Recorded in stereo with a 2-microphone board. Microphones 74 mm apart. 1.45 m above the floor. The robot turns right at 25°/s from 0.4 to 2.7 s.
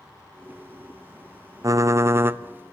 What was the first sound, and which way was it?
Typing on a keyboard, 45° right (ahead or behind).